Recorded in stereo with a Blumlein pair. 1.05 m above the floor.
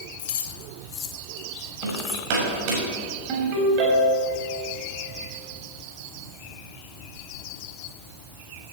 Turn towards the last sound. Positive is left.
turn(degrees=-40)